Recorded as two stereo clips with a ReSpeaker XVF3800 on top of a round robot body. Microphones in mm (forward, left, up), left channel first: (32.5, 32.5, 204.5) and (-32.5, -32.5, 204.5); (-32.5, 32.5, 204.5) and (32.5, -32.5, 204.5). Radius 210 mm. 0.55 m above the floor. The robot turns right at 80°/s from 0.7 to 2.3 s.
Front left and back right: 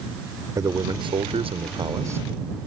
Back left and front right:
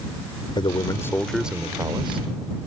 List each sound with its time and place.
0.6 s a man speaking: 170° left; by 2.2 s 70° right